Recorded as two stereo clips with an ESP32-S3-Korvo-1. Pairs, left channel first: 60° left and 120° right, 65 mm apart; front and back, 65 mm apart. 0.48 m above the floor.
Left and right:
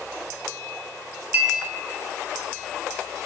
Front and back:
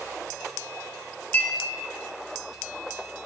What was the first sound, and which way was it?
A clink, 65° right.